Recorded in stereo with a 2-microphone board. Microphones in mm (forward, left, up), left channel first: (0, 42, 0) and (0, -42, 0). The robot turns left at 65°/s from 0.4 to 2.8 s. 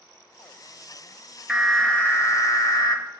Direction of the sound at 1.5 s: 170° right.